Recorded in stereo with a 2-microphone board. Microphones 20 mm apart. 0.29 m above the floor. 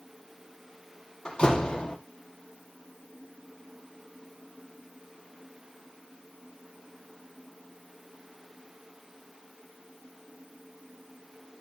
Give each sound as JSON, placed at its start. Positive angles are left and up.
{"t": 1.2, "sound": "a door slam", "side_deg": 40, "distance_m": 5.5}